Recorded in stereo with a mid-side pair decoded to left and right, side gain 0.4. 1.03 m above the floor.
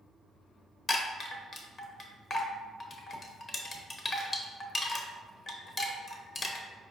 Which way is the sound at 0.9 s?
40° left.